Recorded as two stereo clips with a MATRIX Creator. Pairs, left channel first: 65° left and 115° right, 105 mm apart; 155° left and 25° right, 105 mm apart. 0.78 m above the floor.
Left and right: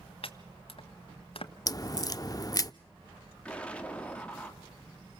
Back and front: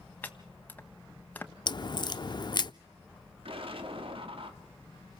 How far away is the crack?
About 0.5 m.